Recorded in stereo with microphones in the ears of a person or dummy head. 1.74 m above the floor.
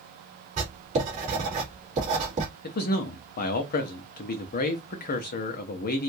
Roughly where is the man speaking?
Left.